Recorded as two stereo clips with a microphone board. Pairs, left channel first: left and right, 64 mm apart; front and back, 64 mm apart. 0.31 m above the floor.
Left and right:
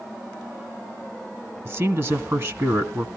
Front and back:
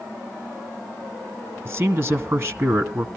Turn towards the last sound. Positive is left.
turn(degrees=-130)